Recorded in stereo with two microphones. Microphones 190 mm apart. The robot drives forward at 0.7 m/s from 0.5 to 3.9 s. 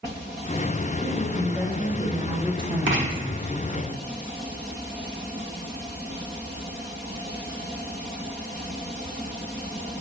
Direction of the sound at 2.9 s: 80° right.